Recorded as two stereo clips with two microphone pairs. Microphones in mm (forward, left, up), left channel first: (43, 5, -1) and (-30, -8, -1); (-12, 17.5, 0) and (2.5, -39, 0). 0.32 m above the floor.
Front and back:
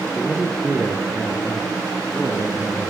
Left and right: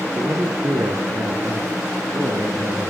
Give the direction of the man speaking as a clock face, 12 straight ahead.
3 o'clock.